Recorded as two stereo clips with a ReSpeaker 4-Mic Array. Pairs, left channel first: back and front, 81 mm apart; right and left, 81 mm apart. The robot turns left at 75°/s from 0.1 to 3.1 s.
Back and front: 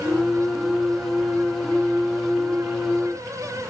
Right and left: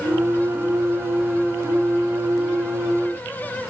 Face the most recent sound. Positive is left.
No sound to turn to.